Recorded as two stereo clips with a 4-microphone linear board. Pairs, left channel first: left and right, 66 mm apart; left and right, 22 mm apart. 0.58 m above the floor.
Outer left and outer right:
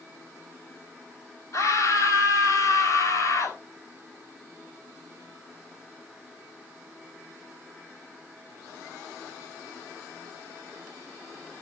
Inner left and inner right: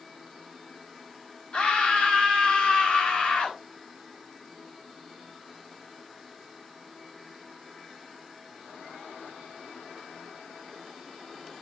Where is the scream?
55° left (ahead or behind), 4.5 m.